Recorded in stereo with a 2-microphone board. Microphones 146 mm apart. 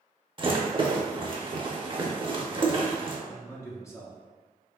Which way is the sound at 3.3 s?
20° left (ahead or behind).